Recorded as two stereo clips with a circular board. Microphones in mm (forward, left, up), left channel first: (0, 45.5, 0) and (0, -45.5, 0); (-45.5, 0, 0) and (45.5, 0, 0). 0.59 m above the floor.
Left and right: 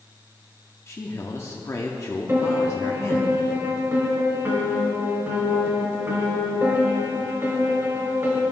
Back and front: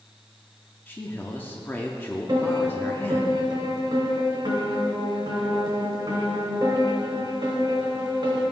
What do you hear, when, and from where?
0.9 s a man speaking: 125° left, 0.7 m
2.3 s a piano: 30° right, 2.5 m